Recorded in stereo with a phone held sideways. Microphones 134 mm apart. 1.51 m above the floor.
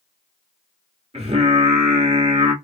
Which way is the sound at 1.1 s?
50° right (ahead or behind).